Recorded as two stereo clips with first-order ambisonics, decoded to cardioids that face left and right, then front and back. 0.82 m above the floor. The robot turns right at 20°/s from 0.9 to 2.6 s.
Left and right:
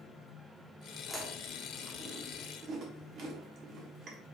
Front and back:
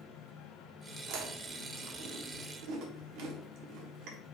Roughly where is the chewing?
Behind.